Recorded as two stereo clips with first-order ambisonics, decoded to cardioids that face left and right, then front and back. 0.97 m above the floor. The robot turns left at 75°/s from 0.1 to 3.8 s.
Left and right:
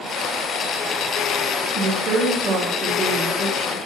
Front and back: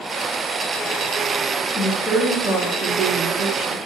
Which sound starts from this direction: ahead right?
A woman speaking, at 1.8 s.